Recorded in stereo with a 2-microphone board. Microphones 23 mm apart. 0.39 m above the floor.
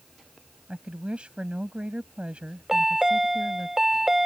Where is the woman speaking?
60° right (ahead or behind).